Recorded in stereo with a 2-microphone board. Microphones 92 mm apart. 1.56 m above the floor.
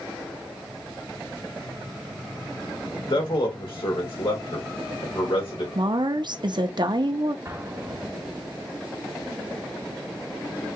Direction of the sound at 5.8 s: 55° right (ahead or behind).